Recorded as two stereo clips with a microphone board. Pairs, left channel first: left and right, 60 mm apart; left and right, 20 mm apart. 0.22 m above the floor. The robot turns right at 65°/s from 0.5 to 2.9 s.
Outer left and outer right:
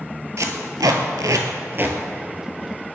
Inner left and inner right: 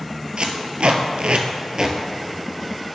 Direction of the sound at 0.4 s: 60° right (ahead or behind).